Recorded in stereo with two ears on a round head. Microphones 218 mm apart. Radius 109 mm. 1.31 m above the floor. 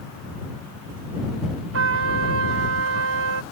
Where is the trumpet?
55° right (ahead or behind).